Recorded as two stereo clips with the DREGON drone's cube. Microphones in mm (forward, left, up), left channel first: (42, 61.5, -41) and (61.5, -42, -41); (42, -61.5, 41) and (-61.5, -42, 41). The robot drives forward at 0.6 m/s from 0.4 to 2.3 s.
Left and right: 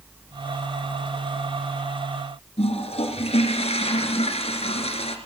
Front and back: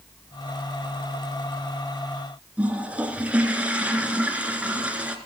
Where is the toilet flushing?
90° left, 2 m.